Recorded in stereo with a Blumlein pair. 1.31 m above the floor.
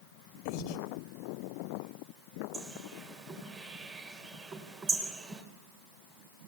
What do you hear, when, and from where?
0.5 s breathing: 45° left, 2 m
2.5 s a bird: 20° right, 4 m